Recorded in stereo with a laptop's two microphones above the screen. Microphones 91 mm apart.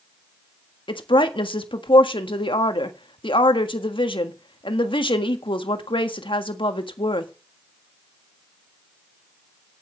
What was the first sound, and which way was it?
A woman speaking, 70° left (ahead or behind).